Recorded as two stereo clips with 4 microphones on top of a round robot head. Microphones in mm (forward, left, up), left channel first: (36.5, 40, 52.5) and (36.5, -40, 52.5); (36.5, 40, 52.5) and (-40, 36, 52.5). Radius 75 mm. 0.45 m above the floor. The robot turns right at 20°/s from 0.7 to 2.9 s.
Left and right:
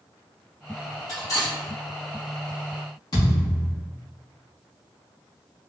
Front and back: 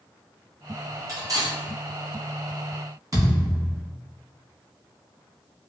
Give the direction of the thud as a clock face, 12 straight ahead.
7 o'clock.